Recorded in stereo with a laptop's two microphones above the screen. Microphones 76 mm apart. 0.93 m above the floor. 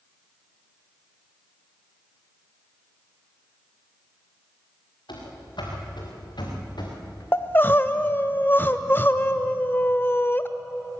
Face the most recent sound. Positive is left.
turn(degrees=25)  # may be behind; listen again after turning